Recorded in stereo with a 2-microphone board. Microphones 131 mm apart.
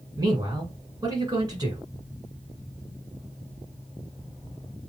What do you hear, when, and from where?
0.2 s a man speaking: 30° right (ahead or behind), 1.5 m